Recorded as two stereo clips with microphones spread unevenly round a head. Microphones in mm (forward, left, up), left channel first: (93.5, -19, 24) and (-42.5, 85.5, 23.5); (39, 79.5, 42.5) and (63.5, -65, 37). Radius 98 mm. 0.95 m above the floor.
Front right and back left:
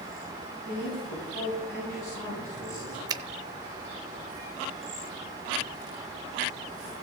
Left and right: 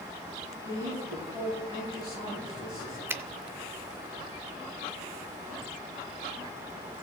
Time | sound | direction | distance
0.6 | a man speaking | 20° right | 7 m
3.1 | a finger snap | 150° right | 0.5 m